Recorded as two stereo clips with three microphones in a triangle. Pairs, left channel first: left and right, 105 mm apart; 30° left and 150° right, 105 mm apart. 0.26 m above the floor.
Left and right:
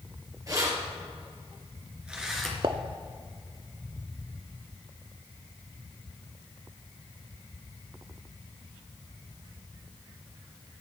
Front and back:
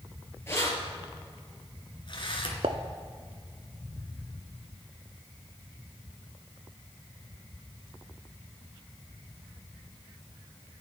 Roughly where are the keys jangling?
Ahead right.